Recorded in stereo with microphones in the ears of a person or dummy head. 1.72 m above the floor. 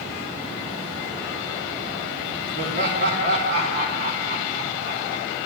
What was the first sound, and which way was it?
Laughter, 55° right (ahead or behind).